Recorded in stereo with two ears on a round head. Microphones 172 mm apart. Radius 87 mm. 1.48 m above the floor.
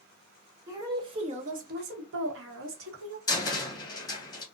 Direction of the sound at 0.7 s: 15° right (ahead or behind).